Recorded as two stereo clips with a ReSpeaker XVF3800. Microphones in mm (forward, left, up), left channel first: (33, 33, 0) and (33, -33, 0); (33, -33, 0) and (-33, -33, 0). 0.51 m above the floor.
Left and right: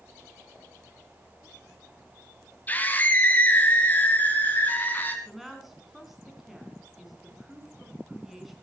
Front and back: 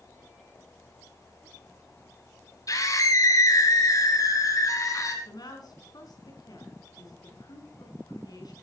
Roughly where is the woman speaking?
Ahead.